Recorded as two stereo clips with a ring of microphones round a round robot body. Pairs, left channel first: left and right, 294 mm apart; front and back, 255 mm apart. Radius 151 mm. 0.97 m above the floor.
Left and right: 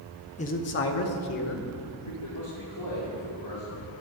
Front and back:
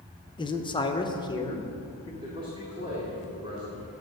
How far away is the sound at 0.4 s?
About 0.7 m.